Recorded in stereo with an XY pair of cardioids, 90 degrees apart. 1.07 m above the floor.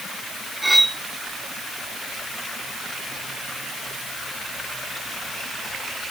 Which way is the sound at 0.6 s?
10° right.